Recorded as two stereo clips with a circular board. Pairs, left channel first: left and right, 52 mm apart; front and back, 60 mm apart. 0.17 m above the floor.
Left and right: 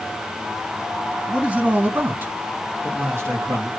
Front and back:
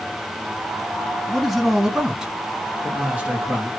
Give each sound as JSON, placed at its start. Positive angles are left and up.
{"t": 1.3, "sound": "a man speaking", "azimuth_deg": -80, "distance_m": 1.0}